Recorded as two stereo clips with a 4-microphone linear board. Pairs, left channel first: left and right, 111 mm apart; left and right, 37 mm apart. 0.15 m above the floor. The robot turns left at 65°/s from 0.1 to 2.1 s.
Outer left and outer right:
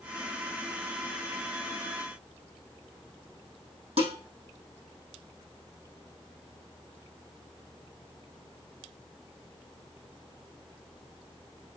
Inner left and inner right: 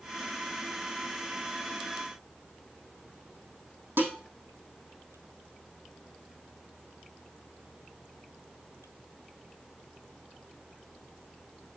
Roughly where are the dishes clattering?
Right.